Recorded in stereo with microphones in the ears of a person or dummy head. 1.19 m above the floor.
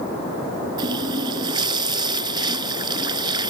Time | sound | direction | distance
0.8 | a running tap | 25° right (ahead or behind) | ?